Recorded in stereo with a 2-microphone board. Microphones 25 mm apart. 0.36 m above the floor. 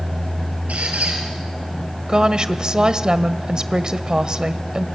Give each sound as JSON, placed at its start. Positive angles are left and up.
{"t": 0.7, "sound": "a squeak", "side_deg": -80, "distance_m": 5.5}
{"t": 2.1, "sound": "a woman speaking", "side_deg": -35, "distance_m": 1.3}